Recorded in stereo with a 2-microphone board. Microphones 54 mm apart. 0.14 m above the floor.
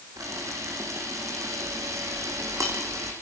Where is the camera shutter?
75° right (ahead or behind), 5.5 m.